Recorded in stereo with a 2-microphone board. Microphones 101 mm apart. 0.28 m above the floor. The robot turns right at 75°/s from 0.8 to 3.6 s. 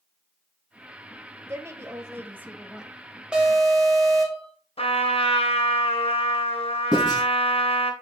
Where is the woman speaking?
25° right (ahead or behind), 1.0 m; by 2.9 s 5° right (ahead or behind), 1.0 m.